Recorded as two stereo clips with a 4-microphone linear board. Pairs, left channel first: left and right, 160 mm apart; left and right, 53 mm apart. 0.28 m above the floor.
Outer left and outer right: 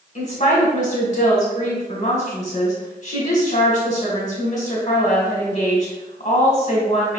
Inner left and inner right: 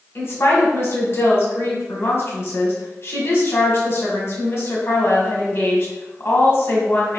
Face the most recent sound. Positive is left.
turn(degrees=50)  # may be behind; listen again after turning